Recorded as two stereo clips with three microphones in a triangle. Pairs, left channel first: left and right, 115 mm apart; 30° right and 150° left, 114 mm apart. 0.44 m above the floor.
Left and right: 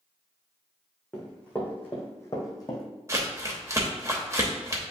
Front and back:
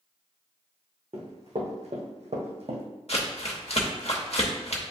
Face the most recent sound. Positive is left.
turn(degrees=-30)